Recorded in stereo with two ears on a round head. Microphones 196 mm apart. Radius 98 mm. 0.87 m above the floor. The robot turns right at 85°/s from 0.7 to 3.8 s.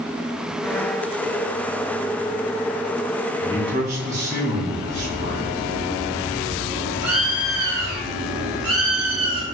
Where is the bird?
75° right (ahead or behind), 1.6 m.